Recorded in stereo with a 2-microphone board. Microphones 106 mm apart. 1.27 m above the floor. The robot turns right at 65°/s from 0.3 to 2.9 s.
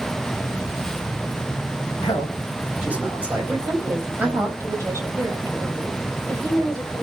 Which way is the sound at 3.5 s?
25° right (ahead or behind).